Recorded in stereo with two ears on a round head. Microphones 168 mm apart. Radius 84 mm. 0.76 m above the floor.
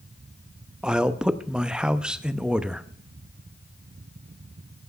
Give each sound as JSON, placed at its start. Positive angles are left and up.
{"t": 0.8, "sound": "a man speaking", "side_deg": -5, "distance_m": 0.5}